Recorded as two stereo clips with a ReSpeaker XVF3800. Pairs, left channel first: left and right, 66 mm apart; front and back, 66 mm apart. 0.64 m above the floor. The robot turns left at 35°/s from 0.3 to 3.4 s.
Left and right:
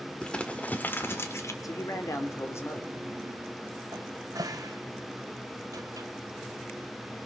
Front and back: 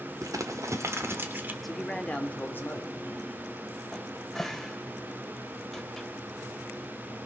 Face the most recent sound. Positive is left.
turn(degrees=-85)